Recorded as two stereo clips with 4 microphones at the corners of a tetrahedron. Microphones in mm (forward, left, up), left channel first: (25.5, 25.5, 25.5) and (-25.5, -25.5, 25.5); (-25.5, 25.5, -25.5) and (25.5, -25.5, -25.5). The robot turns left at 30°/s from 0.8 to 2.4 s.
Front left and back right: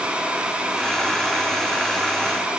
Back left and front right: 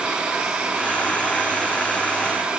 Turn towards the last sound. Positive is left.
No sound to turn to.